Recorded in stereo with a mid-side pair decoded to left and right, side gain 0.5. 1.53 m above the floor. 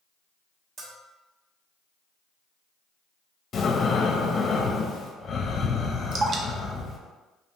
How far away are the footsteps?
I don't hear footsteps.